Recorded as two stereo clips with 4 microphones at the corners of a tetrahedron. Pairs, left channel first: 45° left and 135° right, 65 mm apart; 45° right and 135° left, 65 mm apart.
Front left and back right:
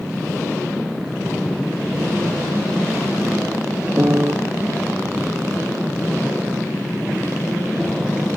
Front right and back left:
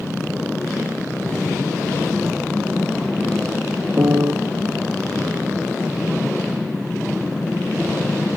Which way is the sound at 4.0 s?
170° left.